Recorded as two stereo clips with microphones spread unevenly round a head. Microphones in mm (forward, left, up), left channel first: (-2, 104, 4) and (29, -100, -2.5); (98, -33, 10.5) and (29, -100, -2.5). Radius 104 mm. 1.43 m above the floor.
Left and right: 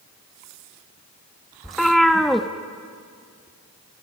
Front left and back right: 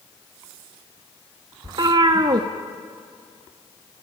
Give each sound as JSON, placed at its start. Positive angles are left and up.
{"t": 1.6, "sound": "a cat meowing", "azimuth_deg": -175, "distance_m": 0.9}